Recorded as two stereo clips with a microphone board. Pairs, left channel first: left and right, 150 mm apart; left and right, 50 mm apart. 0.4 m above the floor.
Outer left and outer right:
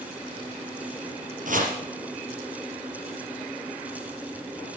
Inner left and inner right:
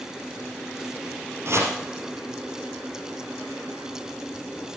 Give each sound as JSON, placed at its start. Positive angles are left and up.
{"t": 1.4, "sound": "chopping", "side_deg": -60, "distance_m": 4.0}